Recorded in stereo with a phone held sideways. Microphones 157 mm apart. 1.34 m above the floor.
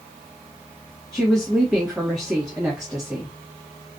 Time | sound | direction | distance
1.1 | a woman speaking | centre (ahead or behind) | 1.2 m